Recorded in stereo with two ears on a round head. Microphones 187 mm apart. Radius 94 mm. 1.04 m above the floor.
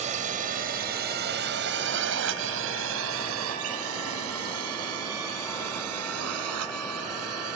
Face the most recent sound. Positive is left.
turn(degrees=-85)